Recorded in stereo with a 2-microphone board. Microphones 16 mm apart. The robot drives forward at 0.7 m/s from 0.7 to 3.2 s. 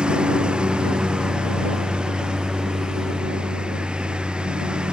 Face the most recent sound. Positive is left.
turn(degrees=-75)  # may be behind; listen again after turning